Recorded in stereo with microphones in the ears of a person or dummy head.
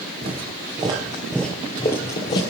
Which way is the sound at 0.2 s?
30° right (ahead or behind).